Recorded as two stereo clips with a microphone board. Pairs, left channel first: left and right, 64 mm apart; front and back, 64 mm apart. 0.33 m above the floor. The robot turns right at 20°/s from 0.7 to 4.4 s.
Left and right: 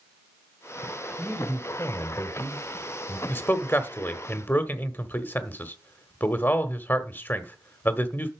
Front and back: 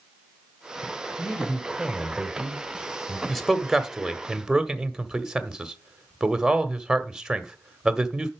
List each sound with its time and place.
1.2 s a man speaking: 50° left, 1.3 m; by 3.2 s 90° left, 1.3 m
3.3 s a man speaking: 85° left, 1.3 m; by 8.3 s 110° left, 1.3 m